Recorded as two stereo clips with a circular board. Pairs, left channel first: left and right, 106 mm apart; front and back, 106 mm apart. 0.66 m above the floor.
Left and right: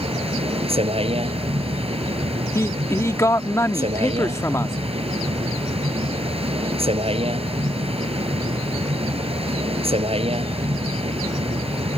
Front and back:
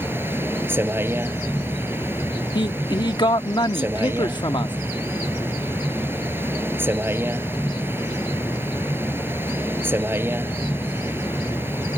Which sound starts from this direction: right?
A vehicle, at 0.0 s.